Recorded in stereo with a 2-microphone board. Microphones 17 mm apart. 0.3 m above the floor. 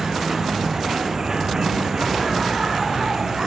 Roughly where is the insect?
Right.